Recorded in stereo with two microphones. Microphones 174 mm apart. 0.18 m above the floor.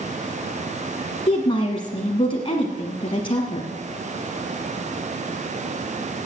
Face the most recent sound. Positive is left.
turn(degrees=30)  # may be behind; listen again after turning